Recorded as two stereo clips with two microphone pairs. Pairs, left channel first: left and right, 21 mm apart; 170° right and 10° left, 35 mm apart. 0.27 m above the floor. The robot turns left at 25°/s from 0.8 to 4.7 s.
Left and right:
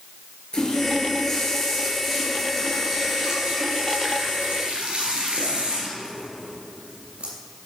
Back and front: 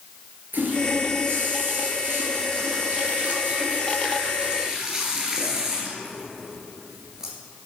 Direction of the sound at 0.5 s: 35° left.